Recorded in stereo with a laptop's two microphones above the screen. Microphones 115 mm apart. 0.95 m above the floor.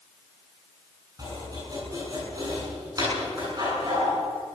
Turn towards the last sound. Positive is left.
turn(degrees=-35)  # may be behind; listen again after turning